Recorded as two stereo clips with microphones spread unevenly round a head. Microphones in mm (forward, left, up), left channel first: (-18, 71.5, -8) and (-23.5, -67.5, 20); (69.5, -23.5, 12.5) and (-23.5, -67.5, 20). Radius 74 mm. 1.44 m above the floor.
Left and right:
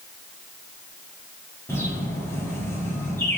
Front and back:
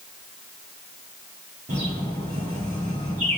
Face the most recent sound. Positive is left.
turn(degrees=165)